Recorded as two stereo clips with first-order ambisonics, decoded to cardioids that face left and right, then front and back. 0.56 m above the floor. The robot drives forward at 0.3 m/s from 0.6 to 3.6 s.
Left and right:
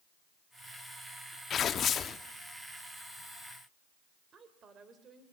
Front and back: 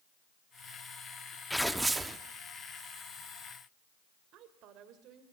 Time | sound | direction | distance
1.5 | tearing paper | 85° left | 0.7 m
4.3 | a woman speaking | 150° right | 2 m